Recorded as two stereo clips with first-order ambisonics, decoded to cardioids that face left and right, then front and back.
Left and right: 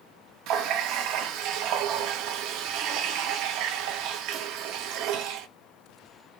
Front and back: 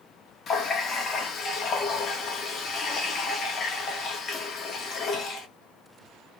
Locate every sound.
0.5 s a running tap: 60° right, 1.0 m